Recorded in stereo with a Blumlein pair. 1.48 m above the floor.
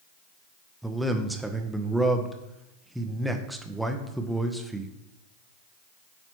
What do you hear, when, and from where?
0.8 s a man speaking: 5° right, 0.7 m